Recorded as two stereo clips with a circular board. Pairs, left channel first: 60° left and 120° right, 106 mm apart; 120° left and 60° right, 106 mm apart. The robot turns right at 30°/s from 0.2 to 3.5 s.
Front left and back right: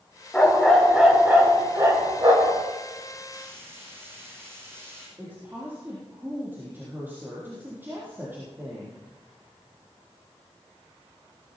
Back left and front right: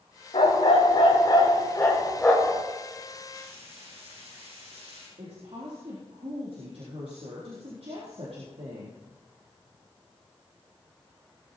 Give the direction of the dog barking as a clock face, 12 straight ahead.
7 o'clock.